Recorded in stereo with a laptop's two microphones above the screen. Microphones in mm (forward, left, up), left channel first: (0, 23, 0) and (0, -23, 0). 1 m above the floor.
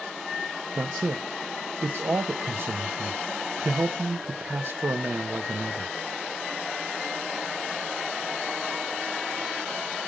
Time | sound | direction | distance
0.8 | a man speaking | 55° right (ahead or behind) | 0.7 m